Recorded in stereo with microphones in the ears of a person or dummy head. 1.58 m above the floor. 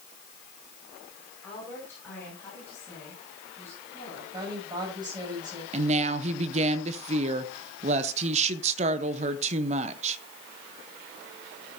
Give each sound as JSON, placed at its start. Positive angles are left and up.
{"t": 1.4, "sound": "a woman speaking", "side_deg": 5, "distance_m": 5.5}
{"t": 4.3, "sound": "a woman speaking", "side_deg": -25, "distance_m": 8.0}
{"t": 5.7, "sound": "a woman speaking", "side_deg": -35, "distance_m": 1.0}